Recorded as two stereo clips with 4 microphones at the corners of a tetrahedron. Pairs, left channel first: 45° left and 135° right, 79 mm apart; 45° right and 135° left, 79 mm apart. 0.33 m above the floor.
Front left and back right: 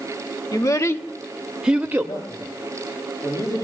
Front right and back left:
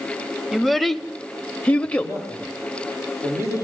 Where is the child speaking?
45° left, 0.7 m; by 2.2 s 100° right, 0.6 m.